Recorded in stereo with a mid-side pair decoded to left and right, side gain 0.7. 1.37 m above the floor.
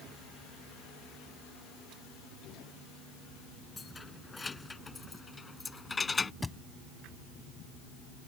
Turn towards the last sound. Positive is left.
turn(degrees=10)